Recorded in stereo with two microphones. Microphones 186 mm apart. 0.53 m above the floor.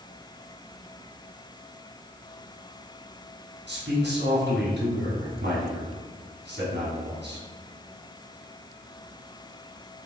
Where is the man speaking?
75° right (ahead or behind), 3.5 m.